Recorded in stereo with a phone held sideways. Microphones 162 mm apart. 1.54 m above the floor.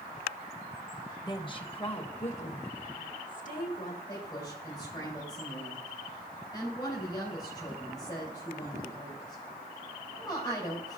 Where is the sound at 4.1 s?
25° left (ahead or behind), 3.5 m.